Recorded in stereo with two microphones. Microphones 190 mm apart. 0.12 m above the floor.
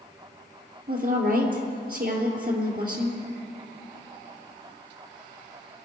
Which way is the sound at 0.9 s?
55° right (ahead or behind).